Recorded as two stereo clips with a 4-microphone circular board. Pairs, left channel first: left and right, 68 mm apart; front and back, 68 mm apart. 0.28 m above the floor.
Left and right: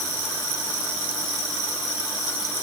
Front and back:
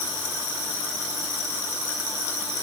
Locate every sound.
Only background noise.